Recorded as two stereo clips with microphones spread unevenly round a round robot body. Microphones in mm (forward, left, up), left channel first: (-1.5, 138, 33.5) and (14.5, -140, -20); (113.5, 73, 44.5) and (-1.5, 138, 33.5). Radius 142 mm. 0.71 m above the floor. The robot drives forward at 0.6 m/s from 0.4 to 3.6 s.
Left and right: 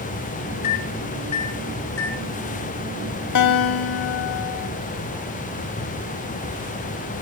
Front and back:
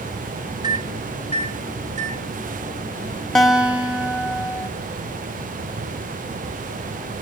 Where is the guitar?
60° left, 0.8 m; by 4.7 s 70° left, 0.8 m.